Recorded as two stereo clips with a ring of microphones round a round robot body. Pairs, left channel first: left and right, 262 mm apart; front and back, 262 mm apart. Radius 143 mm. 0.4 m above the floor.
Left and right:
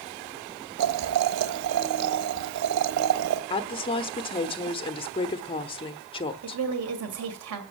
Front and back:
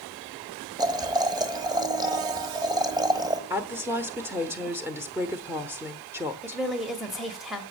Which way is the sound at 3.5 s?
115° left.